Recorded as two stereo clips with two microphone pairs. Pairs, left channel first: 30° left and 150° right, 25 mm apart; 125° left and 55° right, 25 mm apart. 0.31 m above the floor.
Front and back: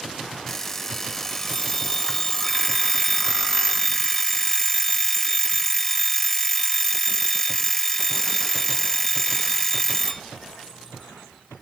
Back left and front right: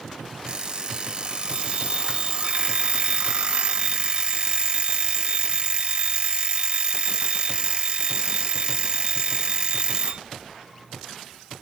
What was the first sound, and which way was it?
An alarm clock, 35° right.